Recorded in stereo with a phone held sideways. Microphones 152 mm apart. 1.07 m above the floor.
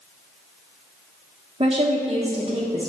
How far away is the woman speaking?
About 1.1 m.